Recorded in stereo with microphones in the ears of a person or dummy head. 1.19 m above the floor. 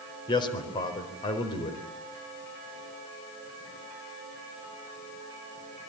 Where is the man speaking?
25° left (ahead or behind), 4.5 m.